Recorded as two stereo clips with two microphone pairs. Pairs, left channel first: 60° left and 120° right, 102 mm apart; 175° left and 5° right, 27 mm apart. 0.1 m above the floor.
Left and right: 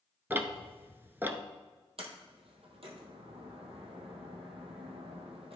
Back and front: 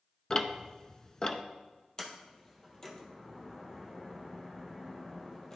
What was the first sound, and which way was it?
Ticking, 165° right.